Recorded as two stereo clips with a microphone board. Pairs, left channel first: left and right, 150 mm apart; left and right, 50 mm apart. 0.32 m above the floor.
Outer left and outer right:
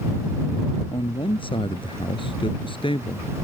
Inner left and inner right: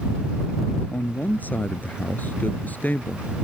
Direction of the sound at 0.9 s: 35° left (ahead or behind).